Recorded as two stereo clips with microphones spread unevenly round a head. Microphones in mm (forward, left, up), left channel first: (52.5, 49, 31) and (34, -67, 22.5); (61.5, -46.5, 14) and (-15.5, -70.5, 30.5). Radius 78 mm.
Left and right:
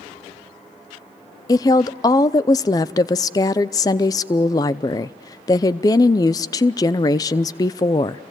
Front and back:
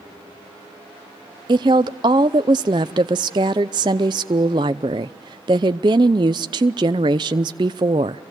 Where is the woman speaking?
145° left, 0.5 m.